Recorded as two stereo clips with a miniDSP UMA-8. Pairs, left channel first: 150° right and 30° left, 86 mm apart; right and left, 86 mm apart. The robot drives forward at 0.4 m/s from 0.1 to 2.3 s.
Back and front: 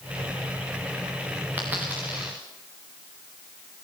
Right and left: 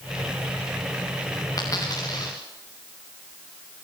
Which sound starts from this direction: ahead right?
A dropped coin, at 1.6 s.